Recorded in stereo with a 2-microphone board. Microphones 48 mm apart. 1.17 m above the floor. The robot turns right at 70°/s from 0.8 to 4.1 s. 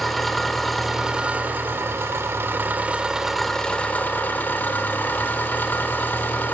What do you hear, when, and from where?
0.0 s an engine running: straight behind, 1.7 m; by 6.5 s 50° left, 1.7 m